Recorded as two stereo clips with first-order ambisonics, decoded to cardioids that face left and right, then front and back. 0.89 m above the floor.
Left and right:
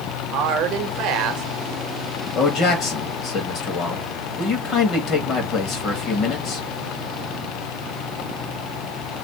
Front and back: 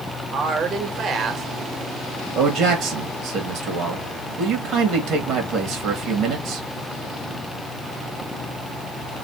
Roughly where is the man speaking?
Behind left.